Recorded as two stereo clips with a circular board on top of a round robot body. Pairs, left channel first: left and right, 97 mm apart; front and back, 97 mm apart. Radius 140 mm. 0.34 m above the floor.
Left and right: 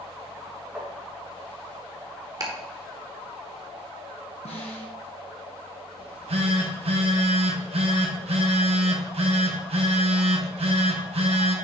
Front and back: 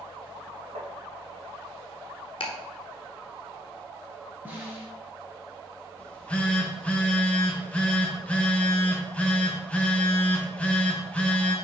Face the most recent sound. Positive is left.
turn(degrees=-75)